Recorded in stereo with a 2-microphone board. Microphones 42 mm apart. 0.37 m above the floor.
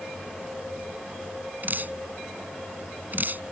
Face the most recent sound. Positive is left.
turn(degrees=-50)  # may be behind; listen again after turning